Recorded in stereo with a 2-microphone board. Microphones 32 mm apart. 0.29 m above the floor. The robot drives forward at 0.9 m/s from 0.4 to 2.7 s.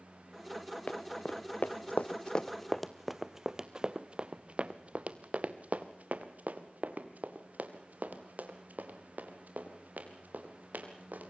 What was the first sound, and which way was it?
Running footsteps, 45° left (ahead or behind).